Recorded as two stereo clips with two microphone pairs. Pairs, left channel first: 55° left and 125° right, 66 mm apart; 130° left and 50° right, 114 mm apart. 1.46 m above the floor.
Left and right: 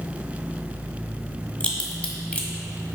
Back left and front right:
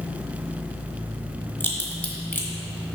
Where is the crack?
90° left, 1.3 m.